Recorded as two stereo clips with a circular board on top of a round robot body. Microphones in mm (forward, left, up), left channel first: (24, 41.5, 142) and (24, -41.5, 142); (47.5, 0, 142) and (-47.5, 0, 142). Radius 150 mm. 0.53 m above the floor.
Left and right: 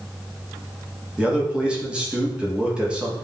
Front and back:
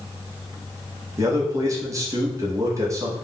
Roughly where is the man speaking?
Behind.